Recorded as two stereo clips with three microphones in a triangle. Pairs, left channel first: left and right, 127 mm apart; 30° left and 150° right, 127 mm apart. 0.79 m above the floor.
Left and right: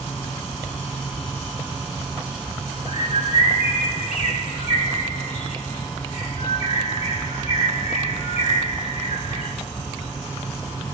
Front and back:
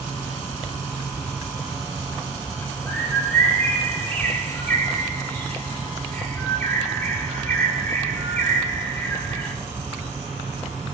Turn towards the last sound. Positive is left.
turn(degrees=105)